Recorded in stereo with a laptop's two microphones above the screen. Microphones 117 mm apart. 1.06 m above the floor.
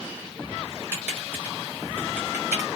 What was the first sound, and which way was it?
Typing on a keyboard, 15° right (ahead or behind).